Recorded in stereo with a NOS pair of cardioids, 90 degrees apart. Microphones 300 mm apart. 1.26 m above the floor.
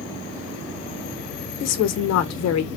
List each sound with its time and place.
1.6 s a woman speaking: 60° left, 0.7 m